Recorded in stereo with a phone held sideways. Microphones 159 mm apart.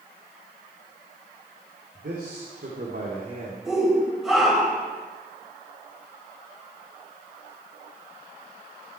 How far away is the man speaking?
About 3.5 m.